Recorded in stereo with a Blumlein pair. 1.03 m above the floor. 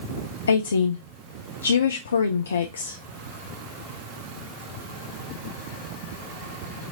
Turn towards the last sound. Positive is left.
turn(degrees=70)